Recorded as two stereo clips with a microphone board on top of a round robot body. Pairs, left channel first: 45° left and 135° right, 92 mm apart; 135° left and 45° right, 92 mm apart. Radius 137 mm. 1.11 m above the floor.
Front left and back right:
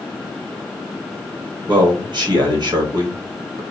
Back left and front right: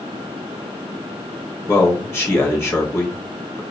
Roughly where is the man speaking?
Behind.